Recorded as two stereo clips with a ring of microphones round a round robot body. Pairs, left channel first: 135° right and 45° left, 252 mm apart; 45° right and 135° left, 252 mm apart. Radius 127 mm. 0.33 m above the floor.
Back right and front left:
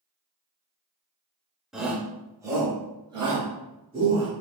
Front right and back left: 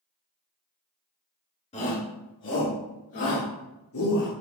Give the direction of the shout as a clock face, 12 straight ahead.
1 o'clock.